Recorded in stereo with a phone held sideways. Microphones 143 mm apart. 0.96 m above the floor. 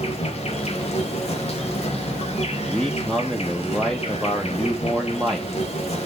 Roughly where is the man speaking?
Centre.